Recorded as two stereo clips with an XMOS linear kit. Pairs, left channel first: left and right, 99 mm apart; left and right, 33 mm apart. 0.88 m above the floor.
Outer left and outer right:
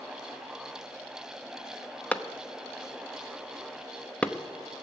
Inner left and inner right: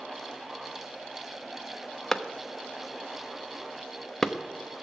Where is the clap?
10° left (ahead or behind), 0.7 m.